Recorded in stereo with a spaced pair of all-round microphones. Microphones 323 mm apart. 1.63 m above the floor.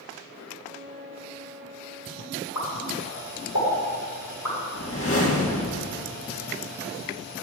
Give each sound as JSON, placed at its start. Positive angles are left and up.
{"t": 0.6, "sound": "a flute", "side_deg": -40, "distance_m": 0.9}
{"t": 2.5, "sound": "a pop", "side_deg": 75, "distance_m": 5.5}
{"t": 4.7, "sound": "a whoosh", "side_deg": 45, "distance_m": 1.7}